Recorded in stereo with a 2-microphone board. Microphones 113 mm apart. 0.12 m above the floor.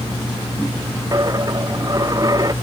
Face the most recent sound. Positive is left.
turn(degrees=-35)  # may be behind; listen again after turning